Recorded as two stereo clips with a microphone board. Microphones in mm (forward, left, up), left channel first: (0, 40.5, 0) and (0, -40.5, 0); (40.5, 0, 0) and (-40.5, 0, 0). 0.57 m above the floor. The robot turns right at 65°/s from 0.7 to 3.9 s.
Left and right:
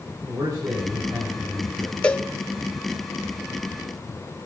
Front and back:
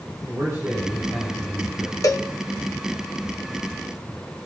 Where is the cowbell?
20° left, 0.9 m; by 2.3 s 35° left, 0.9 m.